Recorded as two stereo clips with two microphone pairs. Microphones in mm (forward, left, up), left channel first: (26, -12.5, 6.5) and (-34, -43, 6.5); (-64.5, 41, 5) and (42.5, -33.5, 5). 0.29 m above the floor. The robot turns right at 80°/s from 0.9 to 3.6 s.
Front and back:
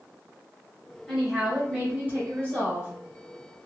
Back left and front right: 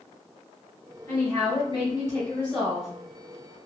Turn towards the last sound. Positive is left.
turn(degrees=-55)